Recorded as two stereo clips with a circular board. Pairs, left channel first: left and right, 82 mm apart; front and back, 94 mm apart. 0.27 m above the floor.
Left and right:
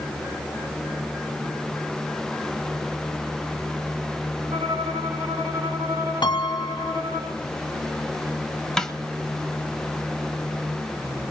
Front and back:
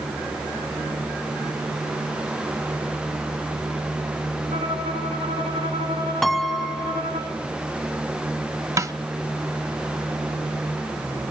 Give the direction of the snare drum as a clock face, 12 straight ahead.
6 o'clock.